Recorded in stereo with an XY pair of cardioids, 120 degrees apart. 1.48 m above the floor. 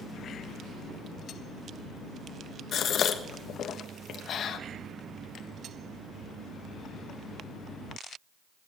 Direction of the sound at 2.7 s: 55° left.